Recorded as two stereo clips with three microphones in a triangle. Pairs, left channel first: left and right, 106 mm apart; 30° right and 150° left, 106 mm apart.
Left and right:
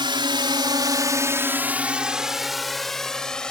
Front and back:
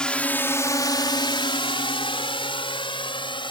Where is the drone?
110° right; by 3.5 s 10° left.